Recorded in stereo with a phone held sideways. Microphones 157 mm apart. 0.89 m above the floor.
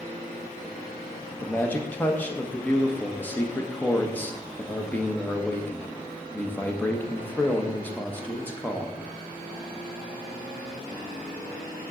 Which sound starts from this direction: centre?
A man speaking, at 1.3 s.